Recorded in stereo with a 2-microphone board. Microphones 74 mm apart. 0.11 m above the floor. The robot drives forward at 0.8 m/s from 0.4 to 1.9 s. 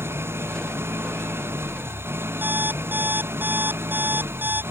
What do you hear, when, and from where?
0.0 s an engine running: 30° right (ahead or behind)
2.4 s an alarm clock: 25° right (ahead or behind)